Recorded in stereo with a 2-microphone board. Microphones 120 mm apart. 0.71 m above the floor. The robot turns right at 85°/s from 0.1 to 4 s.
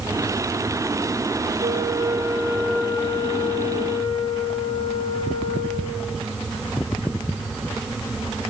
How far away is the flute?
About 2.5 m.